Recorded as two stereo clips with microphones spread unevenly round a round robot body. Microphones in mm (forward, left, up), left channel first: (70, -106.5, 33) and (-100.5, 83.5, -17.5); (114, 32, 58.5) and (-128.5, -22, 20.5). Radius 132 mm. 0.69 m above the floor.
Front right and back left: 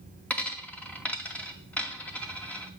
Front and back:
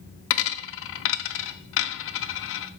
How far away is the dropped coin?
About 0.5 m.